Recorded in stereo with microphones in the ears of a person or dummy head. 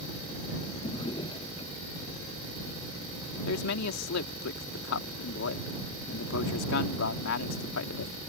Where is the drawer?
25° left (ahead or behind).